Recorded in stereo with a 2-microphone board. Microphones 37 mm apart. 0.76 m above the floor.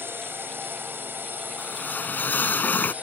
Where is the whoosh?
50° left (ahead or behind).